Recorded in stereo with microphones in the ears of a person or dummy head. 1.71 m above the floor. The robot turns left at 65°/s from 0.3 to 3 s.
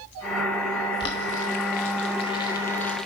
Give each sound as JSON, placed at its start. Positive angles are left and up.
{"t": 1.0, "sound": "boiling", "side_deg": 25, "distance_m": 0.7}